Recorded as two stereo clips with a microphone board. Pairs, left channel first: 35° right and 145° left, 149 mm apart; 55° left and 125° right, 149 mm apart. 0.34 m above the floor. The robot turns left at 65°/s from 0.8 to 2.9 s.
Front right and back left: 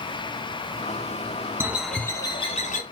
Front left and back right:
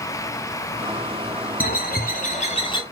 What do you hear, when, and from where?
1.6 s a bird: 70° left, 1.1 m; by 2.8 s 5° right, 1.1 m